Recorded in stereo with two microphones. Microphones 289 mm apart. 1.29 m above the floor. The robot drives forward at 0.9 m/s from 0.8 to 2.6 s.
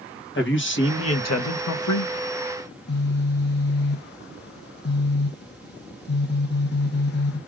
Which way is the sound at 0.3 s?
40° left (ahead or behind).